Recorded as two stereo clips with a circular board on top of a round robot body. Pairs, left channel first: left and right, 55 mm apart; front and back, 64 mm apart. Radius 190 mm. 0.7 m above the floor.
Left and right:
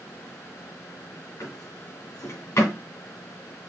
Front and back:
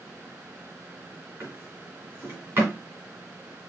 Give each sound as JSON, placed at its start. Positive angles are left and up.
{"t": 1.4, "sound": "a drawer", "azimuth_deg": 120, "distance_m": 3.0}